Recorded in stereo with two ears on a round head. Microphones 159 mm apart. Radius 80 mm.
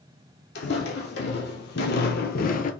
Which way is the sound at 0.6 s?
70° left (ahead or behind).